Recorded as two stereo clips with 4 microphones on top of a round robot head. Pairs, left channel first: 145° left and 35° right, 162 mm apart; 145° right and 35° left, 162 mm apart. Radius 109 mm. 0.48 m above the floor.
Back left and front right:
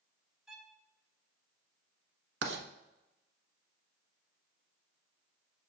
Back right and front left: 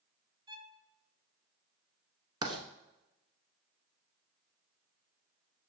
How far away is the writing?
About 1.1 m.